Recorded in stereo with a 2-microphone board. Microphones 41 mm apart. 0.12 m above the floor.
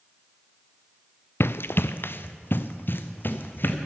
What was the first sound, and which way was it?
Running footsteps, 70° left (ahead or behind).